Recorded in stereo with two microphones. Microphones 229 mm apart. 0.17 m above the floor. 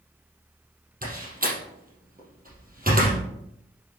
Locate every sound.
1.0 s a door slam: 40° right (ahead or behind), 4 m